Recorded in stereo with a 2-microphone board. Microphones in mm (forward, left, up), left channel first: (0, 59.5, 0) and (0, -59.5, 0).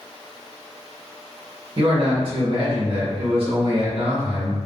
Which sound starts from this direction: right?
A man speaking, at 1.8 s.